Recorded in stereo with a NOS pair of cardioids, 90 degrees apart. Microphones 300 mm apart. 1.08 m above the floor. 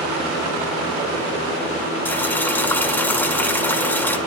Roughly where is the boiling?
Ahead.